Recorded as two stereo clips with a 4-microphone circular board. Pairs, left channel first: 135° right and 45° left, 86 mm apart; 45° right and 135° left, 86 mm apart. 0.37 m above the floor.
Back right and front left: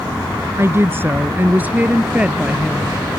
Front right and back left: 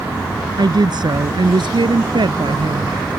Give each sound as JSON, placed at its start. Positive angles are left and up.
{"t": 0.6, "sound": "a woman speaking", "azimuth_deg": 105}